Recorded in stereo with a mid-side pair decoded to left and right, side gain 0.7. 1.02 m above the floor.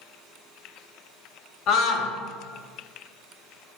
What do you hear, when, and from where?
1.7 s a scream: 50° left, 1.6 m